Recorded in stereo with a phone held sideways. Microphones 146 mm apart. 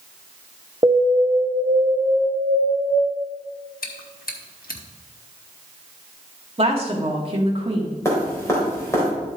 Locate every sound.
0.8 s an alarm: 35° right (ahead or behind), 0.8 m
3.8 s chewing: 85° left, 1.1 m
6.6 s a woman speaking: 40° right (ahead or behind), 1.8 m
8.1 s dripping: 20° left (ahead or behind), 3 m